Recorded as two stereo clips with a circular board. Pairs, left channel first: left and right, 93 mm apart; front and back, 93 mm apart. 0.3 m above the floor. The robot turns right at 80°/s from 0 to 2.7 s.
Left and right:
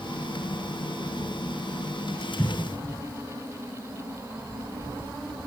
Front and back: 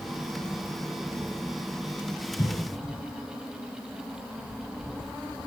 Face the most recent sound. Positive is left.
turn(degrees=80)